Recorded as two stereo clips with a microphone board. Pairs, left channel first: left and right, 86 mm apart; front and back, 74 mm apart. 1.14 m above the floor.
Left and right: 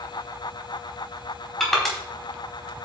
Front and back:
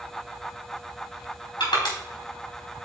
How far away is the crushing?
About 4 m.